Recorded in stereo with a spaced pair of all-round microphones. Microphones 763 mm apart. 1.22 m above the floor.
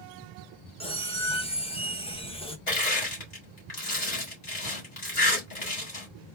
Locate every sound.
0.8 s a squeak: 10° left (ahead or behind), 0.6 m
2.7 s crushing: 60° left (ahead or behind), 2.0 m